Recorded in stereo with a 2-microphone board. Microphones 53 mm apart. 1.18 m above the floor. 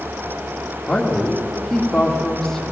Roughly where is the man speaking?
Centre.